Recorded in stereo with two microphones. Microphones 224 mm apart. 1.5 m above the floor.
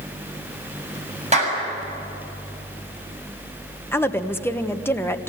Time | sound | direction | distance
1.3 | a clap | 30° right (ahead or behind) | 7 m
3.9 | a woman speaking | 10° left (ahead or behind) | 1.2 m